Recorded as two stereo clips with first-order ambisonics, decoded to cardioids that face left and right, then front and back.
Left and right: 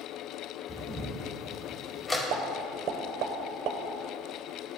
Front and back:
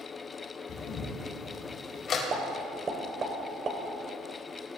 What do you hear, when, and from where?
0.7 s a camera shutter: 20° left, 1.6 m
2.3 s a pop: 120° right, 1.3 m